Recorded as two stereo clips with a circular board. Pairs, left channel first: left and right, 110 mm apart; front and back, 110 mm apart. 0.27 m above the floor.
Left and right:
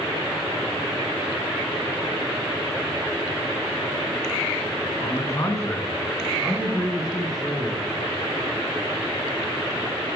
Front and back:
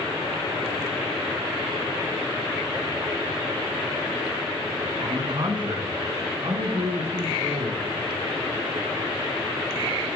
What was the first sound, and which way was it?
A man speaking, 135° left.